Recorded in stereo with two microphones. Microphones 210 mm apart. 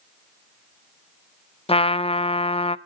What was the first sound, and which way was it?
A trumpet, 25° left (ahead or behind).